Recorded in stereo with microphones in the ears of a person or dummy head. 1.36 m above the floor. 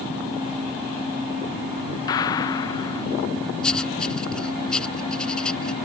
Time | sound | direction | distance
2.1 | a gunshot | 25° left (ahead or behind) | ?
3.6 | writing | centre (ahead or behind) | ?